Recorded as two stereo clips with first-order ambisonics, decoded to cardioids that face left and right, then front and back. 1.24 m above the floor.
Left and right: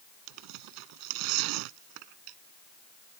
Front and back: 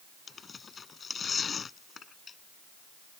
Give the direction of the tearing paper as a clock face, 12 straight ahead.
2 o'clock.